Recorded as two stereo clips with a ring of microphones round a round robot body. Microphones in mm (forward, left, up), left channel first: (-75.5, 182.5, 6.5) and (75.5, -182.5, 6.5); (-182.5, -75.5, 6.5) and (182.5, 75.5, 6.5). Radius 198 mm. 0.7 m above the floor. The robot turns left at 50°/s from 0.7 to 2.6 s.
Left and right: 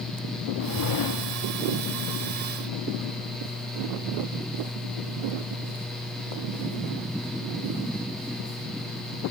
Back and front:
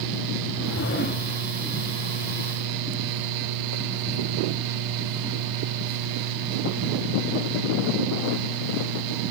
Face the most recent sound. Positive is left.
turn(degrees=60)